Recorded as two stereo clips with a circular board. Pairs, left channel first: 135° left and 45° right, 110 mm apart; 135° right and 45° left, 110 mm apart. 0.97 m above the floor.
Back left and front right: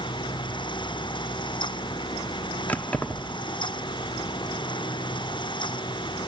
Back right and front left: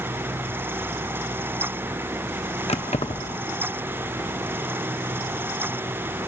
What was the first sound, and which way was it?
Keys jangling, 150° right.